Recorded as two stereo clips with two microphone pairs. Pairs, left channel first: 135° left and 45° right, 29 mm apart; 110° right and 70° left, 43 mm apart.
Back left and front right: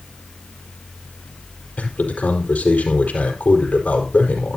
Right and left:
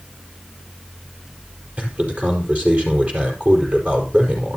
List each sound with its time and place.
1.8 s a man speaking: 120° left, 5 m